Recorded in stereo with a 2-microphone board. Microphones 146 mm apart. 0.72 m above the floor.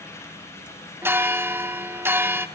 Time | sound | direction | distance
1.0 | a bell | 15° right (ahead or behind) | 0.5 m